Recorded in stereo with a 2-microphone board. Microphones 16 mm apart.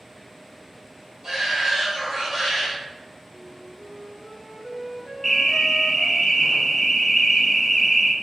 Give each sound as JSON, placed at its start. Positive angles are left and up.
{"t": 1.2, "sound": "a shout", "side_deg": -45, "distance_m": 1.2}
{"t": 3.3, "sound": "a flute", "side_deg": -60, "distance_m": 1.3}
{"t": 5.2, "sound": "an alarm", "side_deg": 0, "distance_m": 0.6}